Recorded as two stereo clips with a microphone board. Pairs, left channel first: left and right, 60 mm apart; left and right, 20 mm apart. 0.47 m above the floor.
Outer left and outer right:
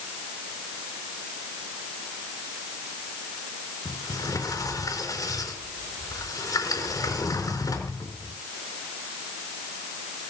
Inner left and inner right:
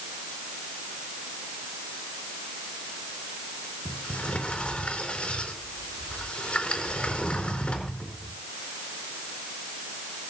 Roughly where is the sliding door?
Left.